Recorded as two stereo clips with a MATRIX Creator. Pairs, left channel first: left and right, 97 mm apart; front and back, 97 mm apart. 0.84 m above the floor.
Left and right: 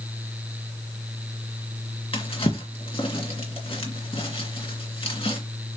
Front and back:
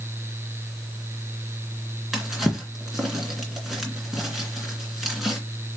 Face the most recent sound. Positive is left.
turn(degrees=90)